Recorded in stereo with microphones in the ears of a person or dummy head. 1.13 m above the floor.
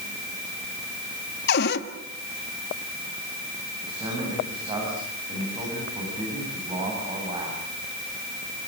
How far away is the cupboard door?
About 1.8 m.